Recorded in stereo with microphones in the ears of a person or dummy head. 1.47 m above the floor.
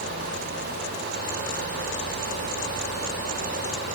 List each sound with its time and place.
Only background noise.